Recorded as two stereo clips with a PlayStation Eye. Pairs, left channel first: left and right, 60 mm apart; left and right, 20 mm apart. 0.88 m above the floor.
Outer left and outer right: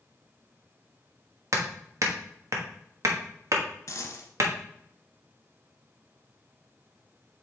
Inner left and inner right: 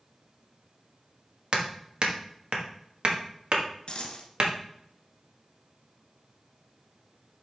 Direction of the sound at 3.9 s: 55° left (ahead or behind).